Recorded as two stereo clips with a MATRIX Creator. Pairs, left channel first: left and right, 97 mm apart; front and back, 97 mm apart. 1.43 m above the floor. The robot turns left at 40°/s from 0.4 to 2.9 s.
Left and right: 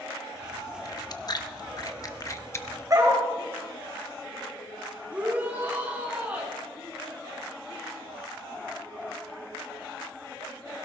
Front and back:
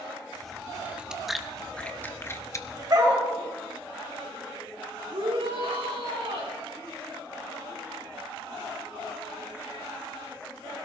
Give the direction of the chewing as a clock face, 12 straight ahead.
8 o'clock.